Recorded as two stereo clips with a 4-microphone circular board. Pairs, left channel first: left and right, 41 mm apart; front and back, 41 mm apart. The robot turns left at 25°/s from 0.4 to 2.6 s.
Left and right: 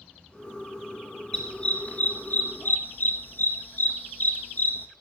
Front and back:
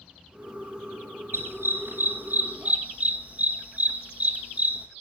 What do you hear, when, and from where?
1.3 s a dog barking: 160° left, 1.9 m; by 4.9 s 130° left, 1.9 m